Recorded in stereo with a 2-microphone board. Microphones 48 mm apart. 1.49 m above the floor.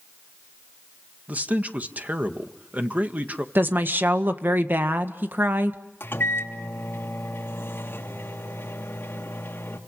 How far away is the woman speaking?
About 1.7 m.